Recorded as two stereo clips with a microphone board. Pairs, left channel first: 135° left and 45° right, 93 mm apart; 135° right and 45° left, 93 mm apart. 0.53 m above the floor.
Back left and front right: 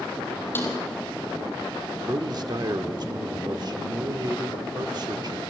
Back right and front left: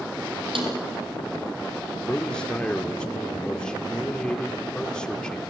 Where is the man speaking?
60° right, 1.2 m.